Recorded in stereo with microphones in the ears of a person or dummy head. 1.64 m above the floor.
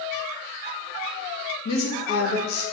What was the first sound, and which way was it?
A woman speaking, 80° left.